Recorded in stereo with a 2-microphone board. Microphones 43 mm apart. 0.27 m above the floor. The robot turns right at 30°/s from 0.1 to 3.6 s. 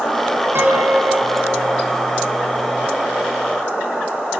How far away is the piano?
About 2.5 m.